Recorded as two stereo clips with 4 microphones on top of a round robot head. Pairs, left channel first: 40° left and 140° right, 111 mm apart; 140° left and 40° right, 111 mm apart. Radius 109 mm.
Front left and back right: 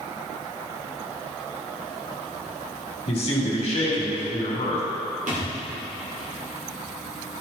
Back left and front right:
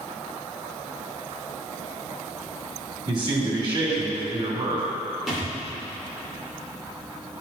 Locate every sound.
3.1 s a man speaking: 10° left, 2.5 m
5.3 s a thud: 130° right, 2.5 m